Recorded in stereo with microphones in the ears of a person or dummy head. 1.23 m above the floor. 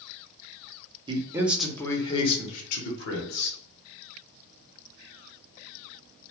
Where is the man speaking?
25° right (ahead or behind), 0.6 m; by 3.6 s 60° left (ahead or behind), 1.2 m.